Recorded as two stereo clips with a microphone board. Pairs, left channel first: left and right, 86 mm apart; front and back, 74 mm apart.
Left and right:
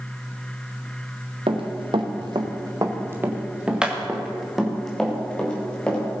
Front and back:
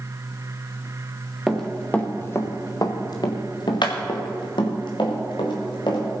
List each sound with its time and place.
1.5 s running footsteps: 85° right, 2 m; by 6.0 s 10° left, 5 m